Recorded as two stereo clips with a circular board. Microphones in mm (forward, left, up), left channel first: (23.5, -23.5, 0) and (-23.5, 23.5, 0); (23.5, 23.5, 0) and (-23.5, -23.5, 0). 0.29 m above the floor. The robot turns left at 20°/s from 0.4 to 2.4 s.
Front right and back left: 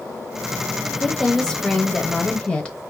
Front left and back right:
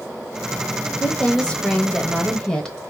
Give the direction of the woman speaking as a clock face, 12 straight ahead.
11 o'clock.